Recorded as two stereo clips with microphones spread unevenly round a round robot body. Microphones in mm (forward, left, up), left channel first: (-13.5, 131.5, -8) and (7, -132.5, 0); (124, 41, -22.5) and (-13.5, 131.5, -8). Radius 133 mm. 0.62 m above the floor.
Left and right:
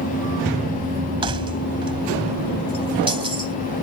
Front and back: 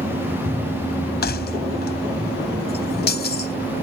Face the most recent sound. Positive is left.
turn(degrees=-15)